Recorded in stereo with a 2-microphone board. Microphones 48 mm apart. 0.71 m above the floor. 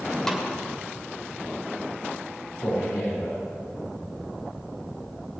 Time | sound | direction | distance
0.3 | a snare drum | 10° left (ahead or behind) | 2.0 m
2.6 | a man speaking | 70° left (ahead or behind) | 5 m